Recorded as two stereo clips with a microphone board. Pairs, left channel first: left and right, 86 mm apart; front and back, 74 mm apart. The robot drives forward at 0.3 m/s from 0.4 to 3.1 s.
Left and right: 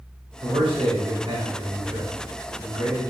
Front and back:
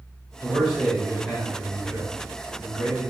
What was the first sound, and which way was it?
A man speaking, 75° right.